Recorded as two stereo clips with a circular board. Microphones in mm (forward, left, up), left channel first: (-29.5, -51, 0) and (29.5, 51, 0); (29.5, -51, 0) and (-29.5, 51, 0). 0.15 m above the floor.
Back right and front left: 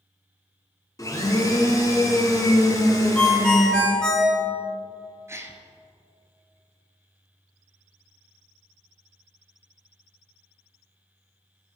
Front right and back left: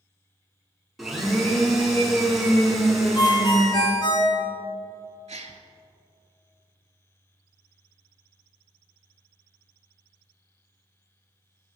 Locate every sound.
1.0 s a blender: 155° right, 0.9 m
3.1 s a ringtone: 40° right, 0.9 m
5.3 s a gasp: 125° left, 0.5 m